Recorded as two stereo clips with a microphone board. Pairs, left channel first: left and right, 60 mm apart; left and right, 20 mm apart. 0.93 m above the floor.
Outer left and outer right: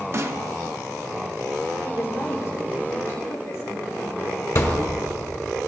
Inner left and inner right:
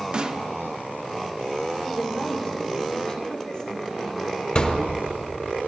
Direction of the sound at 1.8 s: 55° left (ahead or behind).